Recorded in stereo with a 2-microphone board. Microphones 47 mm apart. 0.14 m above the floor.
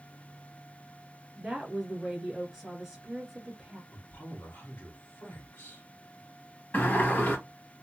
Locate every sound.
1.4 s a woman speaking: 10° right (ahead or behind), 1.3 m
3.9 s a man speaking: 55° left (ahead or behind), 1.9 m
6.7 s a sliding door: 40° left (ahead or behind), 2 m